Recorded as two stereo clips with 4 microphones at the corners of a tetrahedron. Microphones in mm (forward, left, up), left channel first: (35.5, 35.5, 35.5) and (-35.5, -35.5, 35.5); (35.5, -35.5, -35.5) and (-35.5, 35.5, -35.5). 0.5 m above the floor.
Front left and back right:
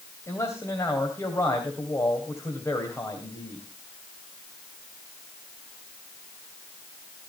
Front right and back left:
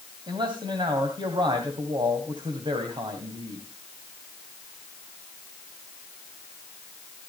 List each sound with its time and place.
0.3 s a man speaking: 100° left, 2.5 m